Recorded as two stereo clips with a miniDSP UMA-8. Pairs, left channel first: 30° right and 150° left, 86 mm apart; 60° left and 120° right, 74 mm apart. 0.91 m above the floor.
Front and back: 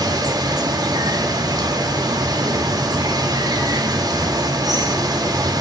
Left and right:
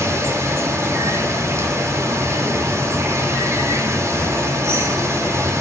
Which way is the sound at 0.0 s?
170° right.